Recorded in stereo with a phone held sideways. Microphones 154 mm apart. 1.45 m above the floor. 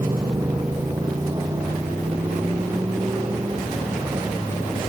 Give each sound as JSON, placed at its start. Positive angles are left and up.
{"t": 0.0, "sound": "a motorcycle", "side_deg": -25}